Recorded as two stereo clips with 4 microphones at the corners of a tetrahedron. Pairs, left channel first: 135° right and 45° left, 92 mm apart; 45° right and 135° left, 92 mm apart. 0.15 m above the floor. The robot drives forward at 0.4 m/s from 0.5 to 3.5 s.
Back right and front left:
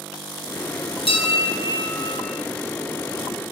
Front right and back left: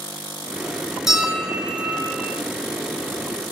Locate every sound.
1.1 s a bell: 140° right, 1.1 m; by 2.4 s 155° right, 1.5 m